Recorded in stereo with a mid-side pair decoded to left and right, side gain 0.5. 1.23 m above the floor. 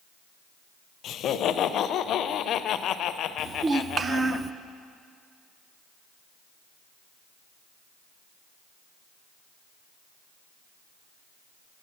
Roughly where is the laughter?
Ahead left.